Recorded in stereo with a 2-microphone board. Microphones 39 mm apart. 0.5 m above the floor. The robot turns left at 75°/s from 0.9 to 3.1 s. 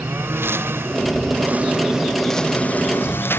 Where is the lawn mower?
85° right; by 3.4 s 75° left (ahead or behind).